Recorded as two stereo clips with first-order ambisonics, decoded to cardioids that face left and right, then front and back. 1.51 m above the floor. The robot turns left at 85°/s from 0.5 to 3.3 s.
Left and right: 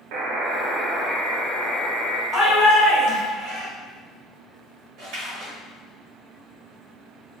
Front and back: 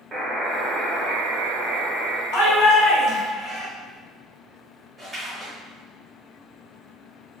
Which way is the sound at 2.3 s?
Straight ahead.